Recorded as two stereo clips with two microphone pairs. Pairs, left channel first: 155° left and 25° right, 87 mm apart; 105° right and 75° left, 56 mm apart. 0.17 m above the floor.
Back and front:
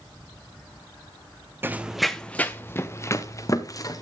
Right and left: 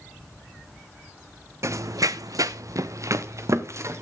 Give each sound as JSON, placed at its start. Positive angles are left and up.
{"t": 1.6, "sound": "running footsteps", "azimuth_deg": 40, "distance_m": 0.6}